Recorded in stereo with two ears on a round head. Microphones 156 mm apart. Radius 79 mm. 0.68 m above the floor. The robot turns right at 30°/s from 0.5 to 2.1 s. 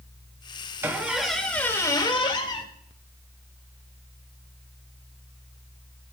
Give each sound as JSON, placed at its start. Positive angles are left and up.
{"t": 0.8, "sound": "a squeak", "azimuth_deg": -15, "distance_m": 1.0}